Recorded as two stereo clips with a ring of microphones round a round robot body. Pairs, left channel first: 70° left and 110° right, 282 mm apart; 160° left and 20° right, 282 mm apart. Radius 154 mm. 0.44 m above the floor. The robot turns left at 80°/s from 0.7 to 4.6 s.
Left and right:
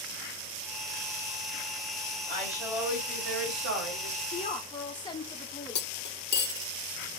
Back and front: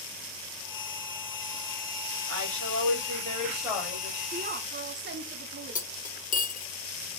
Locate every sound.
2.3 s a woman speaking: 5° right, 2 m; by 4.2 s 160° right, 2 m
4.3 s a woman speaking: 25° left, 1.0 m; by 6.1 s straight ahead, 1.0 m
5.8 s cutlery clinking: 105° left, 0.7 m